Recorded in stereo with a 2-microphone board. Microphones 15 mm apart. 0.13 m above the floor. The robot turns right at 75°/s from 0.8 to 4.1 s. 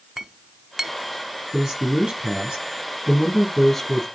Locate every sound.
0.2 s a clink: 15° right (ahead or behind), 0.8 m; by 0.9 s 20° right (ahead or behind), 0.8 m
1.5 s a man speaking: 150° right, 4 m; by 4.0 s 35° left, 4 m